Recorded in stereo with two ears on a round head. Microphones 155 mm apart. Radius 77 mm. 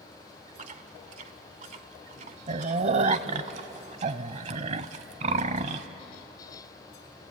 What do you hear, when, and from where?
0.6 s chewing: 40° right (ahead or behind), 0.8 m